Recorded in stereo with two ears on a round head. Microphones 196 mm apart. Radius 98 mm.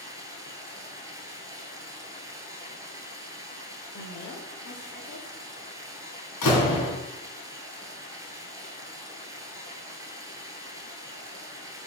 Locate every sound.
0.0 s running water: 15° right (ahead or behind), 1.7 m
3.9 s a woman speaking: 60° left (ahead or behind), 1.9 m
6.4 s a door slam: 75° left (ahead or behind), 3 m